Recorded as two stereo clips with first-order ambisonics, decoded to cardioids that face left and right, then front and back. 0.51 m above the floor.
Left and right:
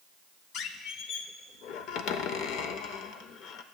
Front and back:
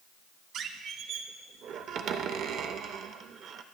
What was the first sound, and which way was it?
A squeak, 130° left.